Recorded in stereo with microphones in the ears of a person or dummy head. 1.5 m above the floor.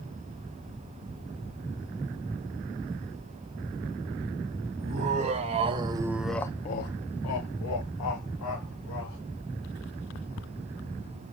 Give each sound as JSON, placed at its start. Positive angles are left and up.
{"t": 4.8, "sound": "laughter", "side_deg": -40, "distance_m": 1.6}